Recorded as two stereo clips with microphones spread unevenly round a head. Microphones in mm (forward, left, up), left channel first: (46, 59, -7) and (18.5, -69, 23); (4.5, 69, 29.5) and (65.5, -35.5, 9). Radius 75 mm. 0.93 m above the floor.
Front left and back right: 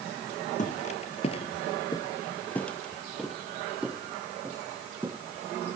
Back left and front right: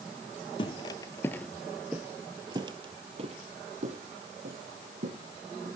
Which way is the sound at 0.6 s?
110° left.